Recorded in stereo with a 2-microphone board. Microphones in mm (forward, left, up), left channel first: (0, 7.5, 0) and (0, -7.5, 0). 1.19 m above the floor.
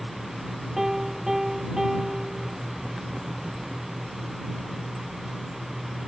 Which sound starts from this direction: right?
A piano, at 0.8 s.